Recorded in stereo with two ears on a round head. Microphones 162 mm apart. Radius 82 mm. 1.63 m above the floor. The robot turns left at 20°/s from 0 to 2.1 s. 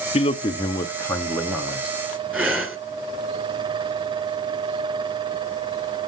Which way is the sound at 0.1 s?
30° left.